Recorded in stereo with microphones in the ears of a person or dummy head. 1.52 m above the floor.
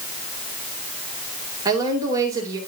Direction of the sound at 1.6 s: 20° right (ahead or behind).